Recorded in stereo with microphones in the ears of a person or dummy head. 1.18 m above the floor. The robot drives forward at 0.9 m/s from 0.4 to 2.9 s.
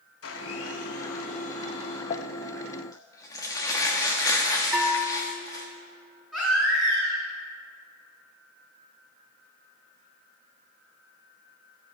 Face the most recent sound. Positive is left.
turn(degrees=-5)  # may be behind; listen again after turning